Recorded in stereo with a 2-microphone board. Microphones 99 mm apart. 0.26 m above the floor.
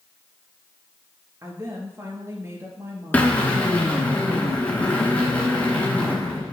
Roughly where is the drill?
Centre.